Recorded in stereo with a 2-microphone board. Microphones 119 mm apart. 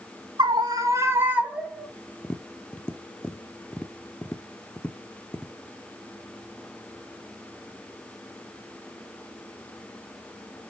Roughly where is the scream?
Right.